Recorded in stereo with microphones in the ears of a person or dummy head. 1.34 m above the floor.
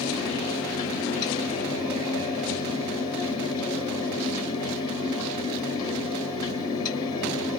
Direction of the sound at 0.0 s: 25° left (ahead or behind).